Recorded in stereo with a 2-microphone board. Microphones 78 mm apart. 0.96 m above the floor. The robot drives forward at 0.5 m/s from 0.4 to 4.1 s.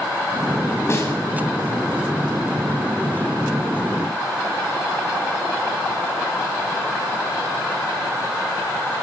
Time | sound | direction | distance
0.9 | a snare drum | 35° left (ahead or behind) | 6 m